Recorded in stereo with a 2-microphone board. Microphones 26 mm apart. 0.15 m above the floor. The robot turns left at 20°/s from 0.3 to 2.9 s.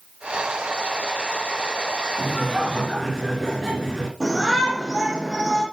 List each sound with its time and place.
2.2 s laughter: centre (ahead or behind), 2.5 m; by 4.1 s 15° right (ahead or behind), 2.5 m
4.2 s a shout: 15° right (ahead or behind), 4.5 m